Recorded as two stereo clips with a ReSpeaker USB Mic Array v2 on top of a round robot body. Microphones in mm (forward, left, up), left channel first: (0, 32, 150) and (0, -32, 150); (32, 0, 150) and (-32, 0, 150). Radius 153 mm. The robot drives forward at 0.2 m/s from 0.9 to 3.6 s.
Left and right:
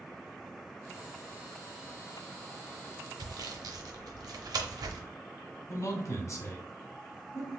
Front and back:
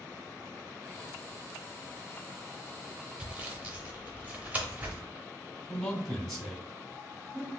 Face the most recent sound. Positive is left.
turn(degrees=85)